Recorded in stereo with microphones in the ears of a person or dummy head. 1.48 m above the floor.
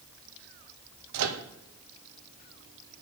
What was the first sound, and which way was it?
A microwave, 80° right.